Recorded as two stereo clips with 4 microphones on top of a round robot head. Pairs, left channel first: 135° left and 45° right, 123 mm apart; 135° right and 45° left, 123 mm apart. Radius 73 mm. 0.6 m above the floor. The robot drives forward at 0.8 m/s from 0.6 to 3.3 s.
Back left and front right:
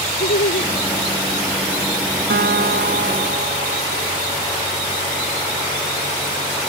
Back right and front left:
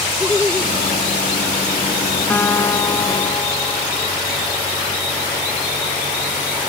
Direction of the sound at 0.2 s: 140° left.